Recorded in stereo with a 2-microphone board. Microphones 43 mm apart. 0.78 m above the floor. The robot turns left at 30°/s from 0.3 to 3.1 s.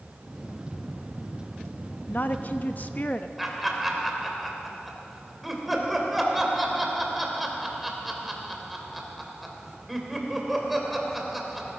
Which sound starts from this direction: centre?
Laughter, at 3.4 s.